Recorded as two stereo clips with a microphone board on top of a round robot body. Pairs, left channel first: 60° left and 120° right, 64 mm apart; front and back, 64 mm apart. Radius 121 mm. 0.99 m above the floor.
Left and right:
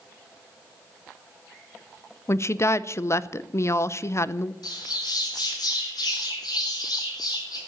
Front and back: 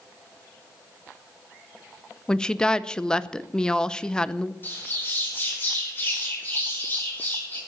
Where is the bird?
60° left, 5 m.